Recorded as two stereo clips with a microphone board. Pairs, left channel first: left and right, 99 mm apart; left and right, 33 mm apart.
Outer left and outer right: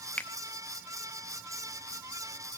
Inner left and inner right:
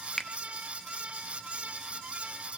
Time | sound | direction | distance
0.2 | a finger snap | 15° left (ahead or behind) | 0.7 m